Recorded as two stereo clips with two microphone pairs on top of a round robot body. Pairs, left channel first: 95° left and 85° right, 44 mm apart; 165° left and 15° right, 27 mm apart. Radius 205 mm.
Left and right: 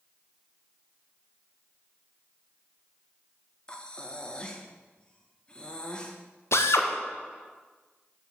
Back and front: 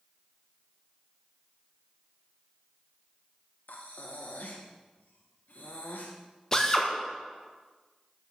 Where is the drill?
95° left, 1.5 m.